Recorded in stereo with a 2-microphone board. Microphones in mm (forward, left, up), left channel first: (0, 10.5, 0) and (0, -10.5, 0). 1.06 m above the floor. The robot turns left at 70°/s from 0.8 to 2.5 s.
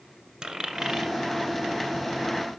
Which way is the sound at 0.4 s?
40° right (ahead or behind).